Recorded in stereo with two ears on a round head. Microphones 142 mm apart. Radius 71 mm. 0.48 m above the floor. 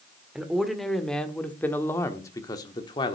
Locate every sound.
0.3 s a man speaking: 5° right (ahead or behind), 1.6 m; by 3.2 s 30° left (ahead or behind), 1.3 m